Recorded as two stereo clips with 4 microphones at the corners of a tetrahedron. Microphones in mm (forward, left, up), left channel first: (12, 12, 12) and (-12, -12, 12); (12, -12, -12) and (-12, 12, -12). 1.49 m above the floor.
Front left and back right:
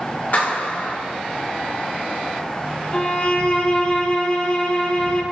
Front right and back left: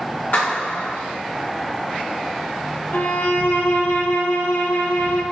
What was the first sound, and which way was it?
A clap, 5° right.